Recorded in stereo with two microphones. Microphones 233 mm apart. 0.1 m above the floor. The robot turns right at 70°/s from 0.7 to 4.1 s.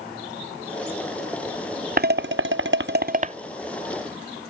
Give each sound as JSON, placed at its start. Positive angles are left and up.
{"t": 2.0, "sound": "dishes clattering", "side_deg": -40}